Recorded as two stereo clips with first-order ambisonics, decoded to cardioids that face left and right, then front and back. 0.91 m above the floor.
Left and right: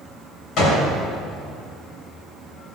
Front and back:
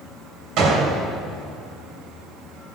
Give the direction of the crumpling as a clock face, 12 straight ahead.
I don't hear crumpling.